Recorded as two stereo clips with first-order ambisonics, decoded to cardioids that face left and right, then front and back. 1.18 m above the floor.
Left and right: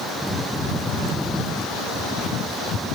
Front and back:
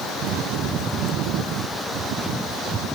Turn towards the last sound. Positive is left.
No sound to turn to.